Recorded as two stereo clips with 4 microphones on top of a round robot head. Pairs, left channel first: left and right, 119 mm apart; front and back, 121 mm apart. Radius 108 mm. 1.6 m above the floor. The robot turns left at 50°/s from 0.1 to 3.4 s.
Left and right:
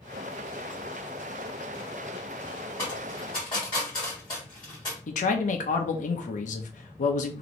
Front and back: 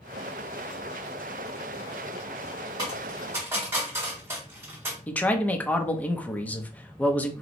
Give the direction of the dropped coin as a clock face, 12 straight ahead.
7 o'clock.